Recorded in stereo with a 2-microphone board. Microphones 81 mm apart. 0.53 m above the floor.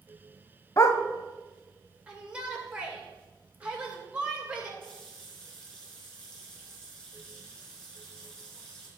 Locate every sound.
0.8 s a dog barking: 40° left (ahead or behind), 0.7 m
2.1 s a shout: 15° right (ahead or behind), 2 m
4.8 s a running tap: 15° left (ahead or behind), 4.5 m